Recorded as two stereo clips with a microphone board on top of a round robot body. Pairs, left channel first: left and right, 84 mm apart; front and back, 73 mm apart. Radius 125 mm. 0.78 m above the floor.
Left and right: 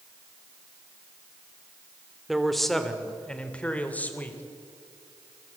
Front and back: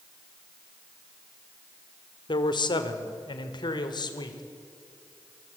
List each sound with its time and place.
2.3 s a man speaking: straight ahead, 2 m; by 4.4 s 20° left, 3 m